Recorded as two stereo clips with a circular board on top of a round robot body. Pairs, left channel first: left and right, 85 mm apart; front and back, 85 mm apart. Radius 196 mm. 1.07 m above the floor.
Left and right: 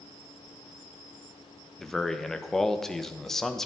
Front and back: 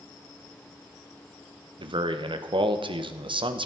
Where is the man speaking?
175° left, 1.6 m.